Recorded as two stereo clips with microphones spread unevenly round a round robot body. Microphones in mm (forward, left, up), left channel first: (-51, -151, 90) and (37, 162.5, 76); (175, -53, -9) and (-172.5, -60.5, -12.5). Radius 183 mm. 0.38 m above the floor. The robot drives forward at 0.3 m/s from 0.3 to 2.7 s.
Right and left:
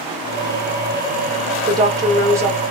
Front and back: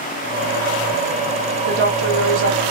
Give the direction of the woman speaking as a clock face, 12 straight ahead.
7 o'clock.